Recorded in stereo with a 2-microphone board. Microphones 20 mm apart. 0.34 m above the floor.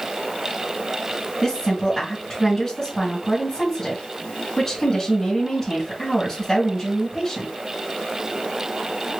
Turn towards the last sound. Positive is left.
turn(degrees=20)  # may be behind; listen again after turning